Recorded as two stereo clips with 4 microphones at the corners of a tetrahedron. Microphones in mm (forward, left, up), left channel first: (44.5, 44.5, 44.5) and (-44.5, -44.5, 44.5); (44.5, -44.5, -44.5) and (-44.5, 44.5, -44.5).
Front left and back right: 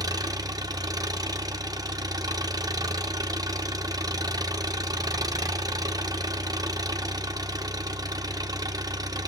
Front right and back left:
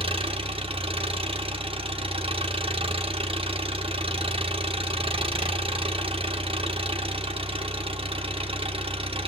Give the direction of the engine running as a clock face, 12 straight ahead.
6 o'clock.